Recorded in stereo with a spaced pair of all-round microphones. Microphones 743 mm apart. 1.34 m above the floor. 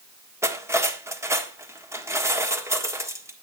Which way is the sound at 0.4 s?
5° right (ahead or behind).